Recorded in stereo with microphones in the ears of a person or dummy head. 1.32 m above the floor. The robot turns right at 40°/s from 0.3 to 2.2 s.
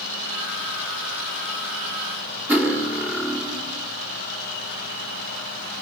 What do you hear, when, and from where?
2.5 s cutlery clinking: 10° right (ahead or behind), 2 m